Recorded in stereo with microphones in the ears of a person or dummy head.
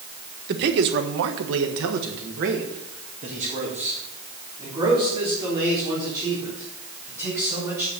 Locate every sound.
0.5 s a man speaking: 55° right (ahead or behind), 1.4 m; by 7.9 s 15° right (ahead or behind), 5.5 m